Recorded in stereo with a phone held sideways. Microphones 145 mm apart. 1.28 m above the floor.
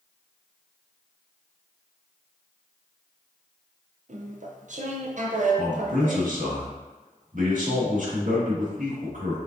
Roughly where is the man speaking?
Right.